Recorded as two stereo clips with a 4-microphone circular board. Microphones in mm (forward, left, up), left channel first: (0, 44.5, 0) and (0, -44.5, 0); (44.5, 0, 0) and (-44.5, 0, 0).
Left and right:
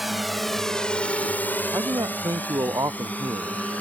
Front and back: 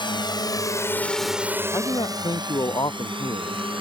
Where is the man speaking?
40° right.